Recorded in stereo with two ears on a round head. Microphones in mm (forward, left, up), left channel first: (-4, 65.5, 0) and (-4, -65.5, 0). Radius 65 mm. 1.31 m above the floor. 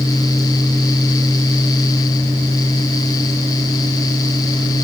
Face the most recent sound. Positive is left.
No sound to turn to.